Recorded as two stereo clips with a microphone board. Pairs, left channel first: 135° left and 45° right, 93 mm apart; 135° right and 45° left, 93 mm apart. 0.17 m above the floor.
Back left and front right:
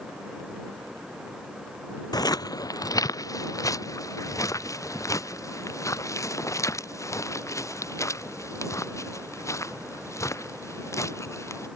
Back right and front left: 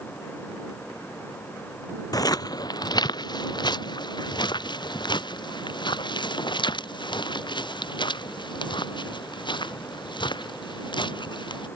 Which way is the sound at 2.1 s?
Straight behind.